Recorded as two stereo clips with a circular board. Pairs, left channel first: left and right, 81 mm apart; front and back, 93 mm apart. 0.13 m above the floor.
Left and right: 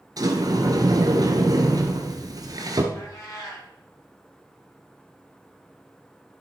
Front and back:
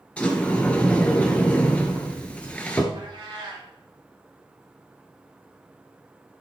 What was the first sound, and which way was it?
A sliding door, 75° right.